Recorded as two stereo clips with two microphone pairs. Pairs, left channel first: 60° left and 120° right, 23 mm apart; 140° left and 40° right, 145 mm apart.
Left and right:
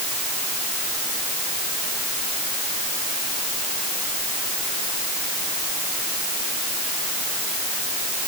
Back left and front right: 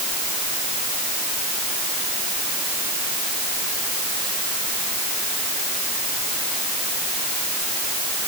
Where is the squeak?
I don't hear a squeak.